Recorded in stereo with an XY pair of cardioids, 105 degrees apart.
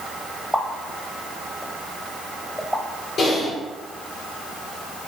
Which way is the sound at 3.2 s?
65° left.